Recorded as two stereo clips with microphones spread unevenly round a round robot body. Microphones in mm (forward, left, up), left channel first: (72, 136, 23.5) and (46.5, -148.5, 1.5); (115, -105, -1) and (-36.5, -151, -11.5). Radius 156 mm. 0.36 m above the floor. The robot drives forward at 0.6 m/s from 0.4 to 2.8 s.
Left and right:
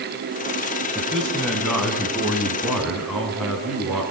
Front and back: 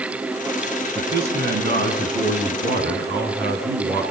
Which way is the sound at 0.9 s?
175° left.